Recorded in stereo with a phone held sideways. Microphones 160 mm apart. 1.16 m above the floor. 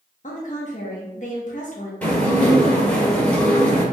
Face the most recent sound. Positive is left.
turn(degrees=10)  # may be behind; listen again after turning